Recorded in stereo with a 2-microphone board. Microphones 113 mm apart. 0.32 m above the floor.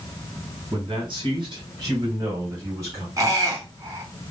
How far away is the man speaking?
About 2.5 m.